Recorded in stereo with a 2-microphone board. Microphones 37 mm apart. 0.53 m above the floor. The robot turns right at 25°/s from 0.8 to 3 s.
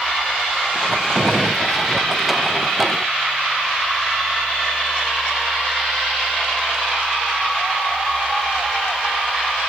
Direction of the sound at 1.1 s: 15° right (ahead or behind).